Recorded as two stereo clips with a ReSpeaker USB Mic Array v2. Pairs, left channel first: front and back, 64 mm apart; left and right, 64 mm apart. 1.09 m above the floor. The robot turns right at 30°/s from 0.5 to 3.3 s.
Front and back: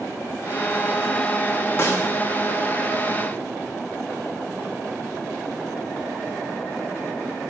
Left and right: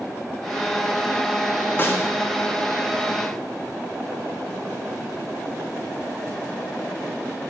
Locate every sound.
1.8 s a snare drum: 40° left, 0.7 m; by 2.1 s 50° left, 0.7 m